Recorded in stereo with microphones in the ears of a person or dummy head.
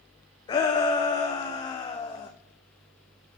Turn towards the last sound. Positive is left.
turn(degrees=25)  # may be behind; listen again after turning